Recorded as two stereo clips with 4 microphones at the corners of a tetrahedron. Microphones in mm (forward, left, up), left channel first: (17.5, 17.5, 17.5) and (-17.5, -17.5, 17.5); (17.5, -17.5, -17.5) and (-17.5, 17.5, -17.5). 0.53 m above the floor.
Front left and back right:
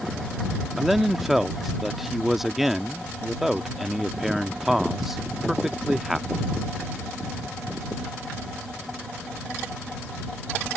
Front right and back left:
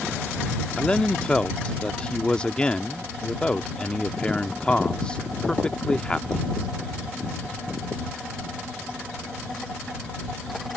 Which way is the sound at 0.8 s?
55° right.